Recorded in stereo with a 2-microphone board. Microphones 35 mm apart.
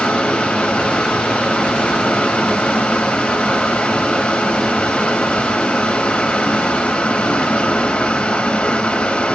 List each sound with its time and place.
0.0 s running water: 35° left (ahead or behind), 2 m